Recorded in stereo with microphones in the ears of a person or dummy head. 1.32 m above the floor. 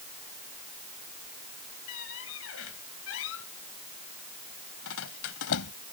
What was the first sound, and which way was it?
A squeak, 85° left.